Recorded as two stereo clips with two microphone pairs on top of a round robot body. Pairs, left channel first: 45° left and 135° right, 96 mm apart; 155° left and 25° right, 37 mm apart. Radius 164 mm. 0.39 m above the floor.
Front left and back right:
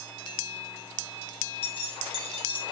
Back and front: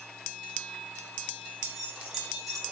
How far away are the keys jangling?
About 2.5 m.